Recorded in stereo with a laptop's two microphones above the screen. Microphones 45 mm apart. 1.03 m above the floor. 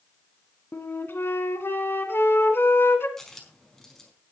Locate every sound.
0.7 s a flute: 60° left (ahead or behind), 1.7 m
3.2 s a dropped coin: 5° left (ahead or behind), 4.5 m